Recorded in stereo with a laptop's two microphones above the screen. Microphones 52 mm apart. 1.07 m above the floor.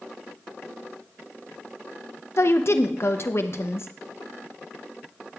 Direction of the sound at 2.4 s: 55° left (ahead or behind).